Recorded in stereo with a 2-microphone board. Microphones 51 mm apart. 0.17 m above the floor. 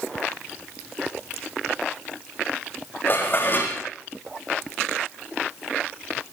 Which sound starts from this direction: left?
Dishes clattering, at 3.1 s.